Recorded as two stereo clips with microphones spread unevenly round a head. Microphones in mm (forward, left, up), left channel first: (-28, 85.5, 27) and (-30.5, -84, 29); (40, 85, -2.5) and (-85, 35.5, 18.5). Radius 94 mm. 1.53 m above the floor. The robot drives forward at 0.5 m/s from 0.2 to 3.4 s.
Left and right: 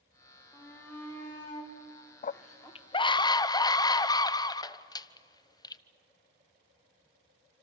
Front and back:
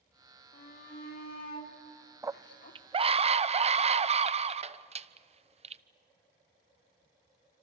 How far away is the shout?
About 4 m.